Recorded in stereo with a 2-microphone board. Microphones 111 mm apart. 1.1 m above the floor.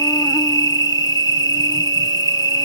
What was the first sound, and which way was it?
An insect, 35° left (ahead or behind).